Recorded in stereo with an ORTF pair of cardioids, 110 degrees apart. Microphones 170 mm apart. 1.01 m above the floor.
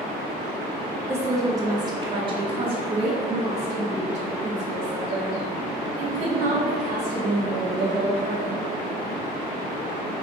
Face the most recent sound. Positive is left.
turn(degrees=-55)